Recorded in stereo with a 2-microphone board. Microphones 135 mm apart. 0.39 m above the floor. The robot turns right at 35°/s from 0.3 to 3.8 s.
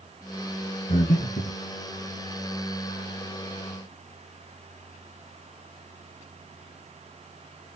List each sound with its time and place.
0.9 s breathing: 60° left (ahead or behind), 5 m; by 1.6 s 85° left, 5 m